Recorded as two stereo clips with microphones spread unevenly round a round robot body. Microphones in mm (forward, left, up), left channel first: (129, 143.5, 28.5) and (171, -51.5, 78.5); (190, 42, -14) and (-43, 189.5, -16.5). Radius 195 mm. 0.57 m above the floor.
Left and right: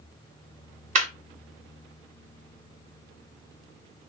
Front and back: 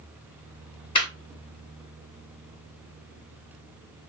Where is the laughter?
70° right, 0.6 m.